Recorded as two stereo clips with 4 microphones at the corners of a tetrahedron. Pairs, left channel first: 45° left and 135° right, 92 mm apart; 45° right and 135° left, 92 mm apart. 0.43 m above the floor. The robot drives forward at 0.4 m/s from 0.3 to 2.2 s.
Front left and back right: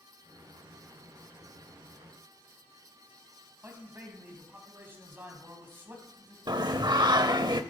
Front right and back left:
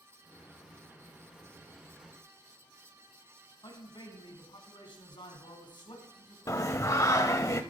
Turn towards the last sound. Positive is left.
turn(degrees=-100)